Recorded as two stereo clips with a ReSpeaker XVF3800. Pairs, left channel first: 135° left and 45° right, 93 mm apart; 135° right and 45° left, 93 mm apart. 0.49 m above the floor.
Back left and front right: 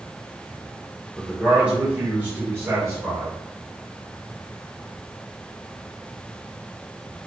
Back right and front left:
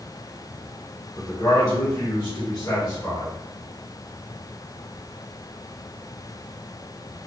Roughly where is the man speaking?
Behind right.